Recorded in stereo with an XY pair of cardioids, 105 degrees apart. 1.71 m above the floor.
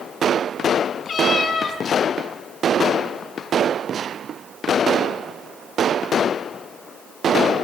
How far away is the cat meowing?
About 5 m.